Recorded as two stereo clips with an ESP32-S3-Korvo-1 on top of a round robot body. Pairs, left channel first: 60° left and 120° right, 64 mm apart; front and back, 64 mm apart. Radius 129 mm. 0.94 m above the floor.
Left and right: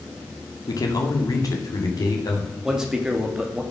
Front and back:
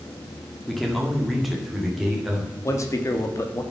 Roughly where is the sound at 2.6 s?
Ahead right.